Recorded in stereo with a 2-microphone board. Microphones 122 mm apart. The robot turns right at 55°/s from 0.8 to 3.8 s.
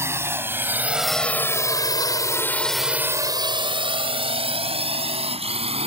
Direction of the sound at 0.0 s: 20° right (ahead or behind).